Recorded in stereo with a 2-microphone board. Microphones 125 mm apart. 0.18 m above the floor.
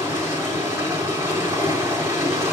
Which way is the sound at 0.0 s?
25° right (ahead or behind).